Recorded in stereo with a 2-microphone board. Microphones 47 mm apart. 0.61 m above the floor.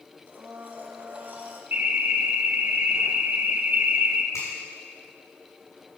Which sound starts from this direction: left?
A finger snap, at 4.3 s.